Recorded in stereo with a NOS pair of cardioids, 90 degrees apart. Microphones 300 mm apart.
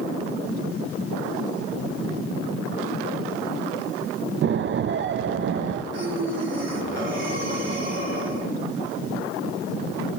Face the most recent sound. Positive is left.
turn(degrees=-40)